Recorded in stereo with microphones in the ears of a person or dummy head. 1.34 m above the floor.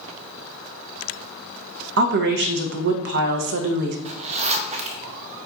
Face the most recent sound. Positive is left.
turn(degrees=-30)  # may be behind; listen again after turning